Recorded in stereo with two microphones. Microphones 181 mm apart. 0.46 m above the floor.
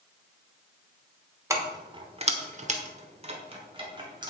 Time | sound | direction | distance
1.5 | keys jangling | 15° right (ahead or behind) | 1.3 m